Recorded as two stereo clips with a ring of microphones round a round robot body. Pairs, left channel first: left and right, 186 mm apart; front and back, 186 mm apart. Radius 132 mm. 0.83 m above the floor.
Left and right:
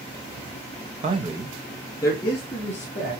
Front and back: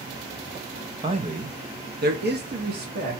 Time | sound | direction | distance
1.0 | a man speaking | 130° right | 0.7 m